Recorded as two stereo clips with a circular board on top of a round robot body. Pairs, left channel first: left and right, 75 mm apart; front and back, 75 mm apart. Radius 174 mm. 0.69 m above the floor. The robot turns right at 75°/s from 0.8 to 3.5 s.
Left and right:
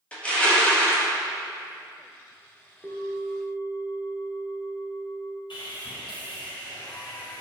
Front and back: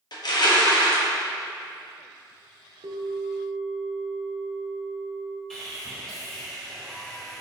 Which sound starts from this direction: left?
Sawing, at 5.5 s.